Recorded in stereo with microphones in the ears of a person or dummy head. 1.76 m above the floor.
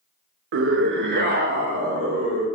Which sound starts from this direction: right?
A scream, at 0.5 s.